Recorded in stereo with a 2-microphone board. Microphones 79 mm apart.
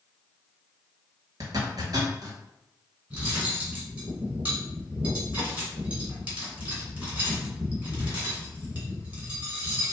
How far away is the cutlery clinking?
About 1.8 m.